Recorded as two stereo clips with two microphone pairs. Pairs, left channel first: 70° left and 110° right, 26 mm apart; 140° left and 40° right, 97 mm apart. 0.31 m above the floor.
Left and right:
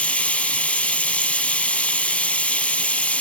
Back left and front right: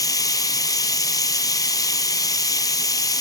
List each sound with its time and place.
0.0 s running water: 95° left, 0.9 m